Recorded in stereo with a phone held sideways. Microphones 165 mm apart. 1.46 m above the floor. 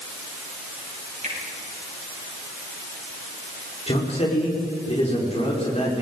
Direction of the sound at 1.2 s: 45° right (ahead or behind).